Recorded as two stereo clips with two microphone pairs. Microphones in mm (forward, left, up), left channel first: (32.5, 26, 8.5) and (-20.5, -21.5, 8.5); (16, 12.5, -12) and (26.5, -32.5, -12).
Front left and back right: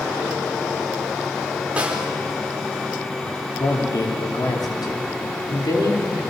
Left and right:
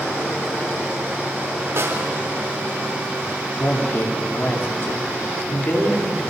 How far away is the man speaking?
About 4.5 m.